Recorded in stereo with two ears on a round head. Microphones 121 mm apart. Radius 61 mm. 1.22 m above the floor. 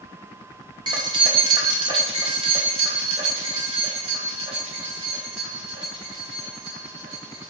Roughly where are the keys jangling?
Right.